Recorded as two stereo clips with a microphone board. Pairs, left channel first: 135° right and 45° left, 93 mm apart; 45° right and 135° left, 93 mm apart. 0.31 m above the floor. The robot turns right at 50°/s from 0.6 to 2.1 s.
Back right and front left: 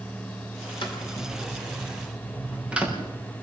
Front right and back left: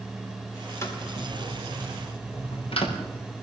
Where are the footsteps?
105° right, 7 m; by 3.0 s 35° right, 6 m.